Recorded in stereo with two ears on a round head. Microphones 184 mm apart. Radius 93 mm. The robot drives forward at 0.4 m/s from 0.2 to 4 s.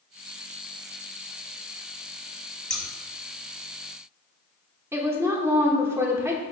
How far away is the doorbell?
I don't hear a doorbell.